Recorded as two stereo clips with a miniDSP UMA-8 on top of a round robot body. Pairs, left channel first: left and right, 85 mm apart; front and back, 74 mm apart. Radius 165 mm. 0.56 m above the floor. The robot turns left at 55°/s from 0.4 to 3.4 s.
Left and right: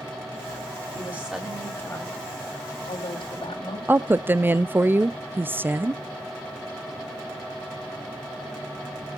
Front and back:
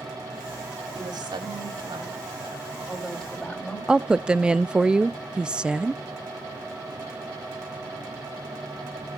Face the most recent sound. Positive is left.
turn(degrees=-115)